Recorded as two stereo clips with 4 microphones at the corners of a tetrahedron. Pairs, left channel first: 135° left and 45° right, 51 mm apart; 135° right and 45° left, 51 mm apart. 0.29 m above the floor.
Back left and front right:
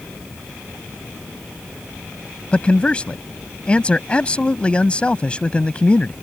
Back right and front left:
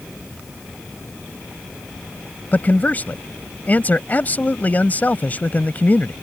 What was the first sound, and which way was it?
A man speaking, 170° right.